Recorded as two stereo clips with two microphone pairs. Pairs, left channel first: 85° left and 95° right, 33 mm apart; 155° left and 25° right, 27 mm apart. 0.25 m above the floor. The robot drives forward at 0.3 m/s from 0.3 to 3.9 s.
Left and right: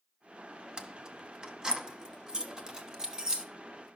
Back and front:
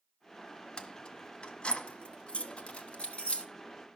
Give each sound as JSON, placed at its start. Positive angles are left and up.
{"t": 0.8, "sound": "keys jangling", "azimuth_deg": -155, "distance_m": 1.1}